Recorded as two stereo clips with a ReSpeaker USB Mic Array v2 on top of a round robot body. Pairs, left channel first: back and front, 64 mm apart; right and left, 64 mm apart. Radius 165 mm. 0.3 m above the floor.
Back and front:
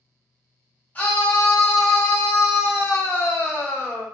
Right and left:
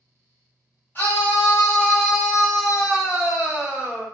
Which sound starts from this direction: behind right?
A scream, at 0.9 s.